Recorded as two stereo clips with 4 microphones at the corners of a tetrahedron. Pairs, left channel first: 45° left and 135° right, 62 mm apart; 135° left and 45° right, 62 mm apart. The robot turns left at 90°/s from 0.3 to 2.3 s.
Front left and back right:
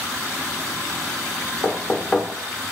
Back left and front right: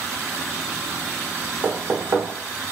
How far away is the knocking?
About 0.7 m.